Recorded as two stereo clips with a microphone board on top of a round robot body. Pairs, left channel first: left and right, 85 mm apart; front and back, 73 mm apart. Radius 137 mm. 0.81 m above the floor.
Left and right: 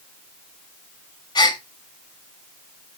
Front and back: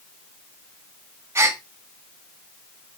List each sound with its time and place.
1.4 s a gasp: 125° left, 1.4 m